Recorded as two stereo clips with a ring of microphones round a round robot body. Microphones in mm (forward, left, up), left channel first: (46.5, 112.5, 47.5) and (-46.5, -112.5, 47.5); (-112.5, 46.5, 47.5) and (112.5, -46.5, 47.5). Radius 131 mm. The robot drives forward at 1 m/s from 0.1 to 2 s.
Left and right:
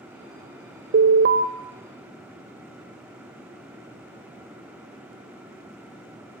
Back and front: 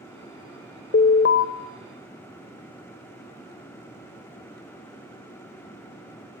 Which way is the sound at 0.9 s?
150° right.